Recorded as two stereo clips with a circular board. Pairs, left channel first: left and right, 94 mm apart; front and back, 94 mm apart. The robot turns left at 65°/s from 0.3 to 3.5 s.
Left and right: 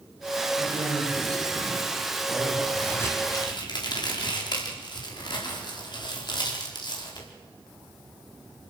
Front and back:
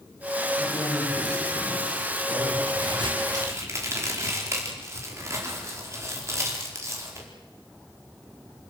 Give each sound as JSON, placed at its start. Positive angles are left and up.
{"t": 0.6, "sound": "a man speaking", "azimuth_deg": -95, "distance_m": 9.5}
{"t": 2.7, "sound": "a crack", "azimuth_deg": 175, "distance_m": 4.5}